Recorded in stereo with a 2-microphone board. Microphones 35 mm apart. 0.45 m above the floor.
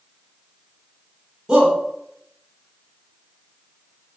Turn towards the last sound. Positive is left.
turn(degrees=-20)  # may be behind; listen again after turning